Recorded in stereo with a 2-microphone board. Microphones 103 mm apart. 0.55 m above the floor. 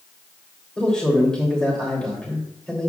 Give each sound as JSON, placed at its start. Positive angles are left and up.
{"t": 0.8, "sound": "a man speaking", "side_deg": 5, "distance_m": 2.5}